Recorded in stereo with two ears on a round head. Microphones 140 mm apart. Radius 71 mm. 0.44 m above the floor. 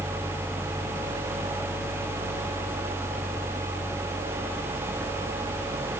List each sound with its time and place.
Only background noise.